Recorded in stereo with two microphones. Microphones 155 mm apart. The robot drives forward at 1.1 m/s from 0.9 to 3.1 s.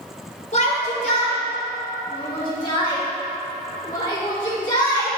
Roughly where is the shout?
Left.